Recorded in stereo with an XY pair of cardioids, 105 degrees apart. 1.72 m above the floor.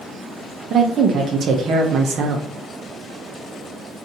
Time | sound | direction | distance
0.7 | a woman speaking | 60° right | 0.7 m